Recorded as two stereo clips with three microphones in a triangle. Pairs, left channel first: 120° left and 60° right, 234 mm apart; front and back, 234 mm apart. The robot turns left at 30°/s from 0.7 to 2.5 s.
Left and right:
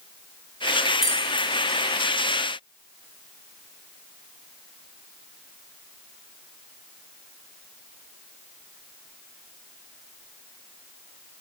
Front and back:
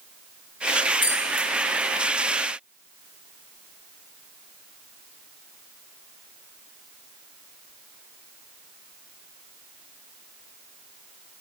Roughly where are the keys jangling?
Ahead left.